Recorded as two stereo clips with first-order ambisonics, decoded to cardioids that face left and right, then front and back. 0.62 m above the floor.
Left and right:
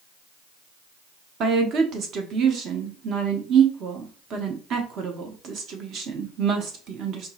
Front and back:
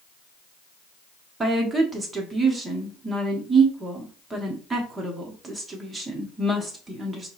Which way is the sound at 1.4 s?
110° right.